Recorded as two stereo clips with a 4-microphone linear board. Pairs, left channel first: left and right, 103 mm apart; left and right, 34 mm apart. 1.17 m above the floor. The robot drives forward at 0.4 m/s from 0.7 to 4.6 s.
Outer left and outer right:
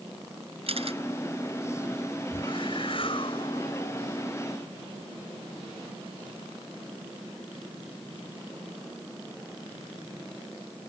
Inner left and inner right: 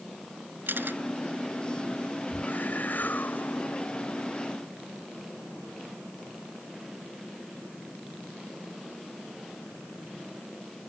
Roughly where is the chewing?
I don't hear chewing.